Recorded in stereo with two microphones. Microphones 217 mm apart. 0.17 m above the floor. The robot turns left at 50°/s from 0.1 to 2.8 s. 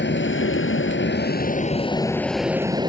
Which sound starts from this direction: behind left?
An aircraft, at 0.0 s.